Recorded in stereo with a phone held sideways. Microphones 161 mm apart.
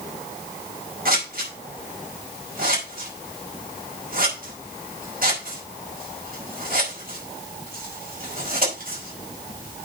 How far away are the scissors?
About 5 m.